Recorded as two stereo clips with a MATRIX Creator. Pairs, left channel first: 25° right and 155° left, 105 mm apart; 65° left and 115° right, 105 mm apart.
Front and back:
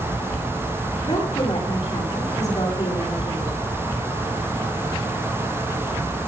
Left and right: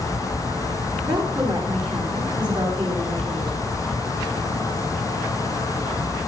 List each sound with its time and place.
1.0 s a woman speaking: 75° right, 8 m